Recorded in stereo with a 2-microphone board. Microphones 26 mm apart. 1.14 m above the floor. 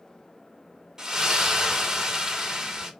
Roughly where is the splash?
Right.